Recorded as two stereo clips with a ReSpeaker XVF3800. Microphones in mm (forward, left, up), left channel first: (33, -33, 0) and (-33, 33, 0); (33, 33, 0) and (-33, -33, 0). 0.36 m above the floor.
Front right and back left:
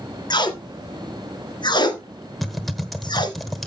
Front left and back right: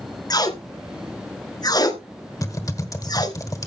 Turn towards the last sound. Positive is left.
turn(degrees=45)